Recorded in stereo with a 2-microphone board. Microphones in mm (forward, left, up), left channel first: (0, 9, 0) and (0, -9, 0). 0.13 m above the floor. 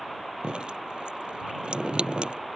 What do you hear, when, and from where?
0.4 s dripping: 70° right (ahead or behind)